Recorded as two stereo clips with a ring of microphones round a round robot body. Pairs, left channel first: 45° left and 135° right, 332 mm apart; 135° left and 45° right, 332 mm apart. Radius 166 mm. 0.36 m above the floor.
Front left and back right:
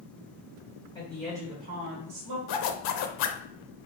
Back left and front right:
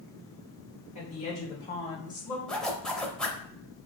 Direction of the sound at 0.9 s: 105° left.